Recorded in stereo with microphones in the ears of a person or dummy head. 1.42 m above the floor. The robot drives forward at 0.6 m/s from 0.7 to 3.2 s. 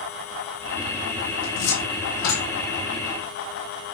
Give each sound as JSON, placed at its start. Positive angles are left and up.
{"t": 1.4, "sound": "a cupboard door", "side_deg": 75, "distance_m": 3.0}